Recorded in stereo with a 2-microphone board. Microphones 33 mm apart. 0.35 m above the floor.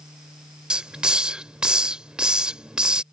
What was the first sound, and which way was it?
A hiss, 30° right (ahead or behind).